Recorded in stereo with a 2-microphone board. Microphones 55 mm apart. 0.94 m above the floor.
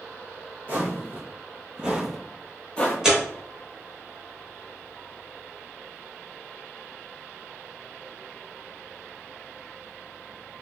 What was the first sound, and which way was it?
Footsteps, 35° right (ahead or behind).